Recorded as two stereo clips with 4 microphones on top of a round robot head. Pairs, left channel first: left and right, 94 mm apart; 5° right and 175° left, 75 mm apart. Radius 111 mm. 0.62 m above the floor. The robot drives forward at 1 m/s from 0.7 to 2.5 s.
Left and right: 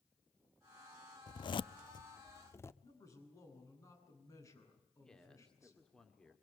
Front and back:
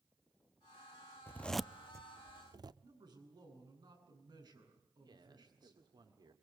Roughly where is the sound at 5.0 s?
Behind.